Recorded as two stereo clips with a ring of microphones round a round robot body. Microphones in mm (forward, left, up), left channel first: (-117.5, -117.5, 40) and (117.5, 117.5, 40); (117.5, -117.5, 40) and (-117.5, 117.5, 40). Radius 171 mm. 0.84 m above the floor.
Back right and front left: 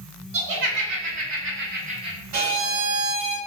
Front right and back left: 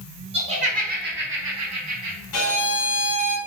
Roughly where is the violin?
Ahead.